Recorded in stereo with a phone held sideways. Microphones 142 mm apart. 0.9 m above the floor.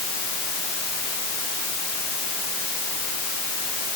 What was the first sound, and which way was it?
Only background noise.